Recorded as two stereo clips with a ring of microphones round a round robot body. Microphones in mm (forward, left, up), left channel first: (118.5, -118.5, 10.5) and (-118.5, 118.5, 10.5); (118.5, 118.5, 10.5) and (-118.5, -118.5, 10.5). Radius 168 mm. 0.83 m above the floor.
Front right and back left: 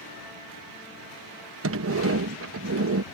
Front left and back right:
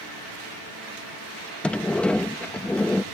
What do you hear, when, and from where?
1.6 s a sliding door: 130° left